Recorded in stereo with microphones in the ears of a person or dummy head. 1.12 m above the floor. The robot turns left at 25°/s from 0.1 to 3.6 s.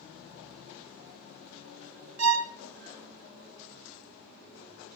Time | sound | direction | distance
2.2 | a violin | 75° right (ahead or behind) | 0.8 m